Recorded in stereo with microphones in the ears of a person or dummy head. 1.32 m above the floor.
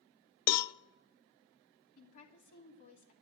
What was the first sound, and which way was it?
A cowbell, 55° left (ahead or behind).